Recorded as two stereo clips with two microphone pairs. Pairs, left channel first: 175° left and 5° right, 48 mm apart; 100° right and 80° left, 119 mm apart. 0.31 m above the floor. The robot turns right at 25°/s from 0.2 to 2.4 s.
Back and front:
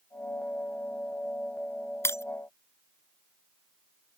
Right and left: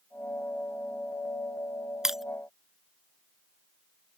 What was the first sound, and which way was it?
Breaking glass, 165° left.